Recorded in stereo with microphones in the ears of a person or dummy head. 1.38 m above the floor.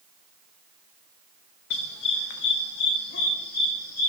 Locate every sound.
1.7 s a dog barking: 65° left (ahead or behind), 2 m; by 4.1 s 60° left (ahead or behind), 4 m